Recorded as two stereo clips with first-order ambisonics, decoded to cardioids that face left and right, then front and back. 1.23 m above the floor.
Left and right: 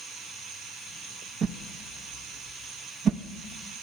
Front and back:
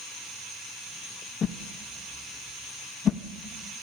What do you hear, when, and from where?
1.4 s a whoosh: 55° right, 0.6 m